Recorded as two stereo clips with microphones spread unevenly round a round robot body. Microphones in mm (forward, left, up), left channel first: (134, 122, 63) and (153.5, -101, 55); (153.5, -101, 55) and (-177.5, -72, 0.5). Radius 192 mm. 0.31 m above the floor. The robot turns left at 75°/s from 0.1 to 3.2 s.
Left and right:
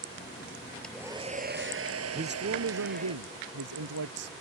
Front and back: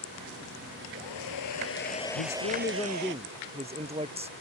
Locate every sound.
0.8 s a hair dryer: 10° left; by 3.1 s 165° right
2.1 s a man speaking: 35° right; by 4.3 s 115° right